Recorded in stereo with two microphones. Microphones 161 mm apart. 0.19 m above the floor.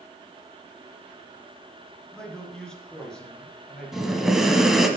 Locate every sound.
2.1 s a man speaking: 5° left (ahead or behind), 2.5 m
3.9 s breathing: centre (ahead or behind), 1.1 m